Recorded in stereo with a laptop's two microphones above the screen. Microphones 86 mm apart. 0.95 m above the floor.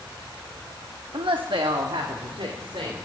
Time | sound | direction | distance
1.1 | a woman speaking | 65° right (ahead or behind) | 0.8 m